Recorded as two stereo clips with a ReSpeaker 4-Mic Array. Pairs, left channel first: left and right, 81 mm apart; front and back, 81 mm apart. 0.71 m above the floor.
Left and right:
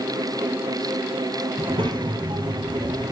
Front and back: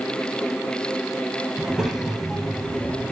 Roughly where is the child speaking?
Right.